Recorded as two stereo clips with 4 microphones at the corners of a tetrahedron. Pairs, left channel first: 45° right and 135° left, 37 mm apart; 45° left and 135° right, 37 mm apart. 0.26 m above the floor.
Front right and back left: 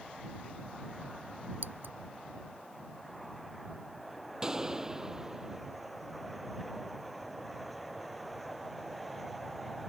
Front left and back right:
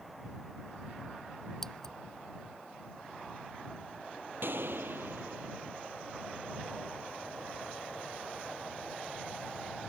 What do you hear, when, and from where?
1.6 s scissors: 125° left
4.4 s a gunshot: 155° right